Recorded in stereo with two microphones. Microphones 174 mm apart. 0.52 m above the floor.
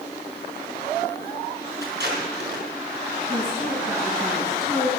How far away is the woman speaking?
About 4 m.